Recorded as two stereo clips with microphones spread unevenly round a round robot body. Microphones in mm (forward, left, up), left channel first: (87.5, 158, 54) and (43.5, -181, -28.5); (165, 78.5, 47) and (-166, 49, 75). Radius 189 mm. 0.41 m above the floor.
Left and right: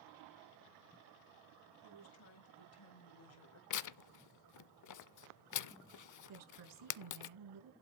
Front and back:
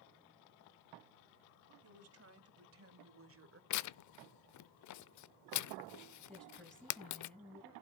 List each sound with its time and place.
1.8 s a woman speaking: 140° left, 2.5 m; by 3.6 s 135° left, 1.9 m
3.7 s tearing paper: 40° left, 0.6 m
6.3 s a woman speaking: 80° right, 5 m